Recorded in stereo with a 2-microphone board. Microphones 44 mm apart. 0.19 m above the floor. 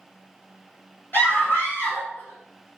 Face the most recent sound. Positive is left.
turn(degrees=55)  # may be behind; listen again after turning